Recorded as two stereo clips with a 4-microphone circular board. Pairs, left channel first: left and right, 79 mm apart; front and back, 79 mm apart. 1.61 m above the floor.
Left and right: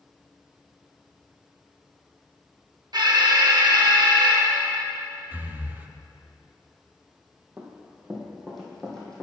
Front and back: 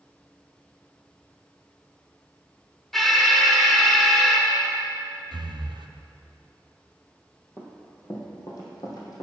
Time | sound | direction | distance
2.9 | an alarm | 85° right | 1.3 m
5.3 | breathing | 160° right | 0.5 m
7.6 | running footsteps | 30° right | 2 m